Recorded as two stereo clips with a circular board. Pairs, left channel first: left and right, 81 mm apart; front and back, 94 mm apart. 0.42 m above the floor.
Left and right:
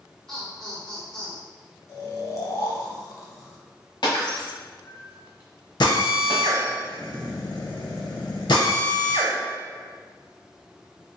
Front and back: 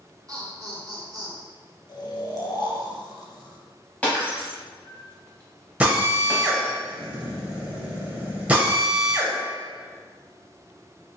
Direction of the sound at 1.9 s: 40° left.